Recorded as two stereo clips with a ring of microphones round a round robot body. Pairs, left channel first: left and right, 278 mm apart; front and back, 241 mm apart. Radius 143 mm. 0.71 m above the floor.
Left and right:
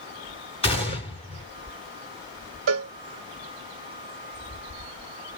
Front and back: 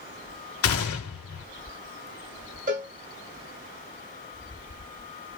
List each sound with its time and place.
0.6 s a gunshot: 20° left, 1.6 m
2.7 s a cowbell: 125° right, 0.6 m